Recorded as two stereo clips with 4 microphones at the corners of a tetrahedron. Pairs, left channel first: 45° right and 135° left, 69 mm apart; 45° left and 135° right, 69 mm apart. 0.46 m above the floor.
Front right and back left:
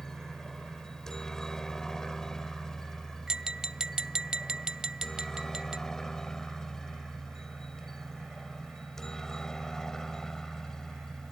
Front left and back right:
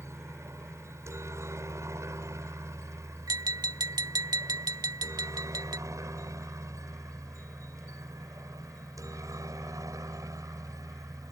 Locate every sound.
0.0 s a helicopter: 125° right
3.3 s tapping: 145° right